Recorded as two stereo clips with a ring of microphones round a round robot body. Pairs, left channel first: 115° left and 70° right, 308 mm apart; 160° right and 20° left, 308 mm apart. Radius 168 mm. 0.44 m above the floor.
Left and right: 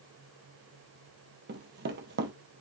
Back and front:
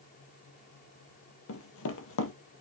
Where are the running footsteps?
120° right, 0.6 m.